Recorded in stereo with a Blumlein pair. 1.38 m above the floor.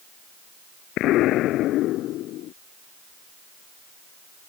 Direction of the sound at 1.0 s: 35° left.